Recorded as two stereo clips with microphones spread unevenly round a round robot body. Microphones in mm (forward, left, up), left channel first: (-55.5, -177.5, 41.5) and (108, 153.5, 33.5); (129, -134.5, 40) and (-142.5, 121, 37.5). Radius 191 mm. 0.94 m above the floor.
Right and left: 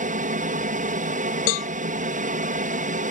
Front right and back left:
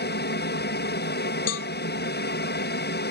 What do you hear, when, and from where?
0.0 s an aircraft: 5° left
1.5 s a cowbell: 95° right